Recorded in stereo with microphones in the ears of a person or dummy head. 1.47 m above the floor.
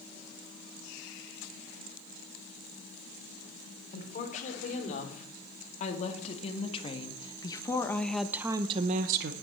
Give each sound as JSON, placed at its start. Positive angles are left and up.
{"t": 3.9, "sound": "a woman speaking", "side_deg": 45, "distance_m": 4.0}